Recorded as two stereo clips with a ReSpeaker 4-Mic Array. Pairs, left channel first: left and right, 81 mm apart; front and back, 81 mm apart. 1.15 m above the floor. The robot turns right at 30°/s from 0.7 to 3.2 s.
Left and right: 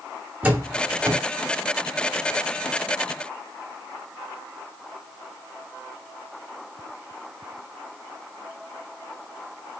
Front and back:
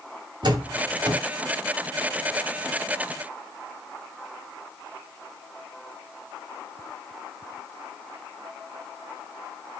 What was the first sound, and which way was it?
A door slam, 160° right.